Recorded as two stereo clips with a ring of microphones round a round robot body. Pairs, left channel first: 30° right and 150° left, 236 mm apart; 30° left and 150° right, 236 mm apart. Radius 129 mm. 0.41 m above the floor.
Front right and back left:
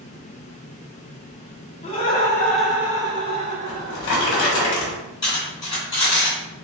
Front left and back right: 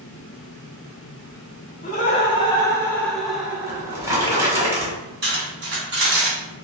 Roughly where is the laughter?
Ahead.